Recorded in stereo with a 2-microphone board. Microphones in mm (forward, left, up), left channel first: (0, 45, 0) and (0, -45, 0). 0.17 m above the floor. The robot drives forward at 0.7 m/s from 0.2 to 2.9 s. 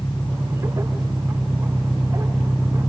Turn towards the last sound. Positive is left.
turn(degrees=10)  # may be behind; listen again after turning